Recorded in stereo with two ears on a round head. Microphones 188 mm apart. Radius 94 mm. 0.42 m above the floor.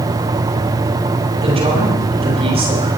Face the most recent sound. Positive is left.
turn(degrees=-30)  # may be behind; listen again after turning